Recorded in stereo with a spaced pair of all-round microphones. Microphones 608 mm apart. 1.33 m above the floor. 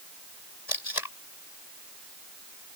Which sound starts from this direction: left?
Tape being pulled, at 0.7 s.